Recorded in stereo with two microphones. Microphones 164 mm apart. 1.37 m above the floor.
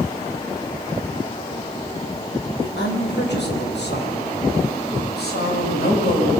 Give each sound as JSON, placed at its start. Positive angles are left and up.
{"t": 2.6, "sound": "a woman speaking", "side_deg": 80, "distance_m": 6.5}